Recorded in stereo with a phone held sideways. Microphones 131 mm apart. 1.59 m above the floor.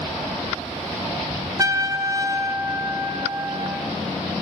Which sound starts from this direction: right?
A trumpet, at 1.6 s.